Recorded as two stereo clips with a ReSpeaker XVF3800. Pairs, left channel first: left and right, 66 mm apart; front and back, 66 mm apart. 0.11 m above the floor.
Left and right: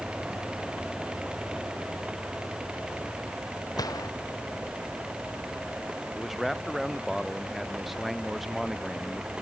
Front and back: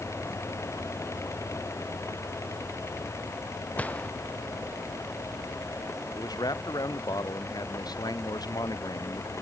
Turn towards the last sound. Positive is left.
turn(degrees=0)